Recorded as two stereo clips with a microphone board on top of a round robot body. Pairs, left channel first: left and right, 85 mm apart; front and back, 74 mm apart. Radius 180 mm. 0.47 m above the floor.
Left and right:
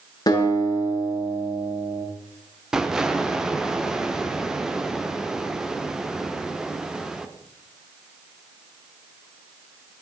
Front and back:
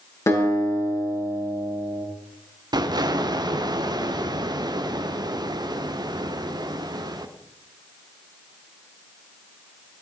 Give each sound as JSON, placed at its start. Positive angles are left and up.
{"t": 0.3, "sound": "a guitar", "azimuth_deg": 50, "distance_m": 8.5}
{"t": 2.7, "sound": "an explosion", "azimuth_deg": -175, "distance_m": 1.7}